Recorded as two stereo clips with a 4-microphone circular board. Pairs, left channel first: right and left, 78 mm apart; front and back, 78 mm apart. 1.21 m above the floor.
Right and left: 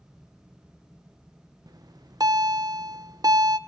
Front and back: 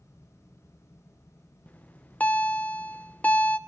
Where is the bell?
70° left, 0.9 m.